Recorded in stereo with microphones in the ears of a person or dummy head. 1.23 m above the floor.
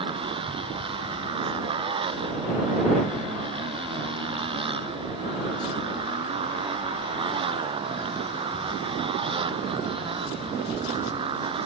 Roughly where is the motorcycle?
Right.